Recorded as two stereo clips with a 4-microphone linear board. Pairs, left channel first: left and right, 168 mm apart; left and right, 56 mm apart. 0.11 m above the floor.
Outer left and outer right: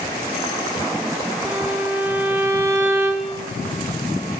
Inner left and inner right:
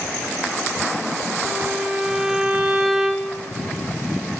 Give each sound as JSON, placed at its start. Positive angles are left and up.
{"t": 1.4, "sound": "a violin", "side_deg": -10, "distance_m": 5.0}